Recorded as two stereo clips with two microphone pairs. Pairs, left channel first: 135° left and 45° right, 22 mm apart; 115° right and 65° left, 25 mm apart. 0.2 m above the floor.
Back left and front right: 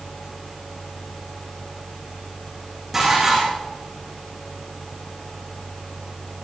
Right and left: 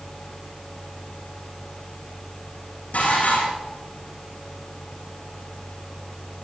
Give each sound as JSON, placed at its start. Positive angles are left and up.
{"t": 2.9, "sound": "dishes clattering", "azimuth_deg": -125, "distance_m": 8.5}